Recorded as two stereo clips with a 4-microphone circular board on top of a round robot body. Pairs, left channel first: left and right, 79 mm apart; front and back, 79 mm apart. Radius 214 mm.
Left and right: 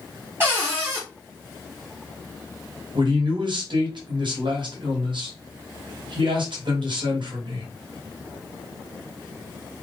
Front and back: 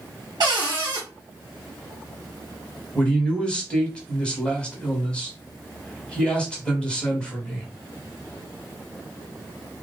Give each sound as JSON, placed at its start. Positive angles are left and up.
{"t": 0.4, "sound": "a cupboard door", "azimuth_deg": -150, "distance_m": 0.9}
{"t": 3.0, "sound": "a man speaking", "azimuth_deg": -75, "distance_m": 1.5}